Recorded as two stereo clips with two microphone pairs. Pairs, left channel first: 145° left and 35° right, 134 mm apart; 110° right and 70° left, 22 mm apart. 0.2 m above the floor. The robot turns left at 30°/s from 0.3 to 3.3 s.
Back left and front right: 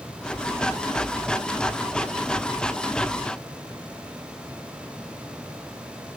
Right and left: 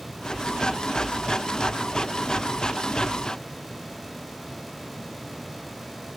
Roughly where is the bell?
I don't hear a bell.